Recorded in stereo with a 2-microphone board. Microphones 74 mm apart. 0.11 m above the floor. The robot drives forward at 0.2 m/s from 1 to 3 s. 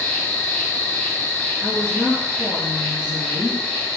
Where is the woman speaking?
25° right (ahead or behind), 1.5 m.